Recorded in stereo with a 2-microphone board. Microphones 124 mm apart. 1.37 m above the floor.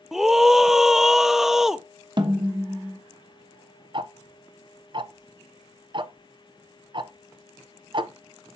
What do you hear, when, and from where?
0.1 s a scream: 5° right (ahead or behind), 0.5 m
2.2 s a snare drum: 40° right (ahead or behind), 1.1 m
3.9 s ticking: 40° right (ahead or behind), 0.5 m